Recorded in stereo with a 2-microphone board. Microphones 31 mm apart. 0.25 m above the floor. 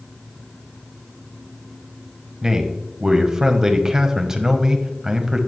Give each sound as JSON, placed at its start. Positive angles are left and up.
{"t": 2.4, "sound": "a man speaking", "side_deg": -15, "distance_m": 1.2}